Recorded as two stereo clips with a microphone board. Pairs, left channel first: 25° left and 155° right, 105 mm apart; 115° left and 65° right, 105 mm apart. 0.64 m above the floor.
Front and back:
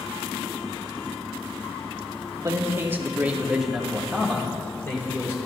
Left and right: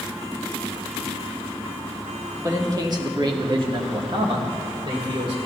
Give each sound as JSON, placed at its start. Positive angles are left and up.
{"t": 2.4, "sound": "a man speaking", "azimuth_deg": -115, "distance_m": 1.2}